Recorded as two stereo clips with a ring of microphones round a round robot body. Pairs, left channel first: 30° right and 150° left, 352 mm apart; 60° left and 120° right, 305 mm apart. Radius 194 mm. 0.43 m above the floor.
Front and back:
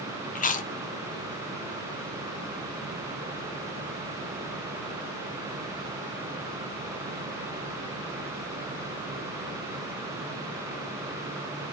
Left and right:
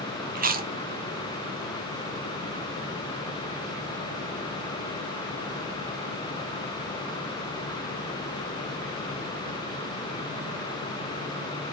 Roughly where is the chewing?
Right.